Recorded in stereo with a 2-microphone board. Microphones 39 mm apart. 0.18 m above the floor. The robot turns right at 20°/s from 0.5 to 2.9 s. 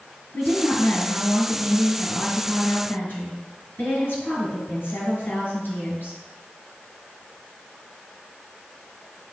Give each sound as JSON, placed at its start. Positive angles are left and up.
{"t": 0.3, "sound": "a woman speaking", "azimuth_deg": 55, "distance_m": 3.0}